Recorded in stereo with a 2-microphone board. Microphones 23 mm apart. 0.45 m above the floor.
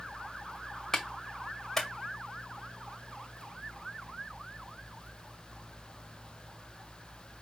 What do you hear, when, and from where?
0.9 s a clap: 25° left (ahead or behind), 1.8 m